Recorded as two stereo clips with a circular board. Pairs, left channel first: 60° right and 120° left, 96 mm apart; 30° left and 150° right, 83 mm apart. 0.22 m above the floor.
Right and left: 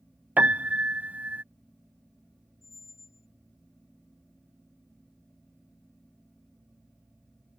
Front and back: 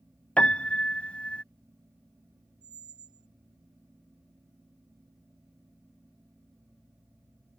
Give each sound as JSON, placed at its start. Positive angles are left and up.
{"t": 0.4, "sound": "a piano", "azimuth_deg": 80}
{"t": 2.6, "sound": "a squeak", "azimuth_deg": -120}